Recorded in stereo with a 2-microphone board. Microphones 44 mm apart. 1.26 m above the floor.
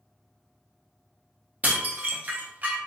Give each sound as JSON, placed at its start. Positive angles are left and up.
{"t": 1.6, "sound": "dishes clattering", "side_deg": -35, "distance_m": 0.6}